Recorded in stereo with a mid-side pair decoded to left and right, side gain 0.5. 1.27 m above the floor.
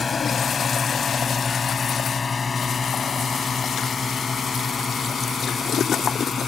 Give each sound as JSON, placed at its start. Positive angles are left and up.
{"t": 0.0, "sound": "a drone", "azimuth_deg": 35}